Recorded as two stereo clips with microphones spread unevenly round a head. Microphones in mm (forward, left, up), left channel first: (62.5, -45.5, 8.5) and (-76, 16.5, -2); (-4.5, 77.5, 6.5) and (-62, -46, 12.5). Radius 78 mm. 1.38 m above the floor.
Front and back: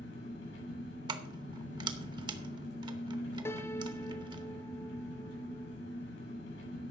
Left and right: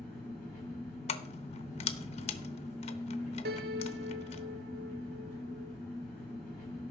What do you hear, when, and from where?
0.0 s an engine running: 35° right, 8.5 m
1.1 s keys jangling: 95° left, 0.8 m
3.5 s a piano: 100° right, 0.9 m